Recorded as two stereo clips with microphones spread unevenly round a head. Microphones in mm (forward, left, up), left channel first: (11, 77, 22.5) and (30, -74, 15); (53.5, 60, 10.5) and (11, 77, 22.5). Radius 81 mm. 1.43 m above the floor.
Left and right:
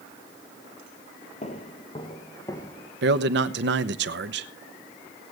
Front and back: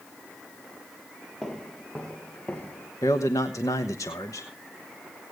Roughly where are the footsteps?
Ahead left.